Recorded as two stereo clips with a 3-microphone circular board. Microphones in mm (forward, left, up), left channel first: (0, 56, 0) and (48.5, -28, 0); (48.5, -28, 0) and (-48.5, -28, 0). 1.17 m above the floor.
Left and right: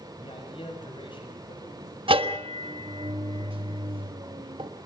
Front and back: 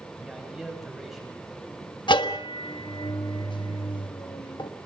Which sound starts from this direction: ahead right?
A bell, at 2.1 s.